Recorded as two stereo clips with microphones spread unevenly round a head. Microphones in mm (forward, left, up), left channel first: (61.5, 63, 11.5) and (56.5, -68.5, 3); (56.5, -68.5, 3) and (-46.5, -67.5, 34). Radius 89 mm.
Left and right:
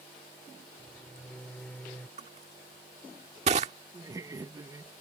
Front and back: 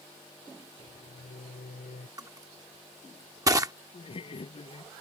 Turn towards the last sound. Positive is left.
turn(degrees=-30)